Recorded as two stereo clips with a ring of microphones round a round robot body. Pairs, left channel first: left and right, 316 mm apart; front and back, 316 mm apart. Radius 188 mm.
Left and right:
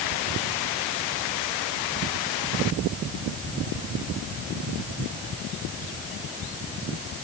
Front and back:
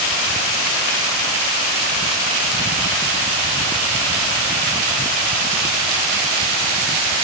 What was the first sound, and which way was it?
Only background noise.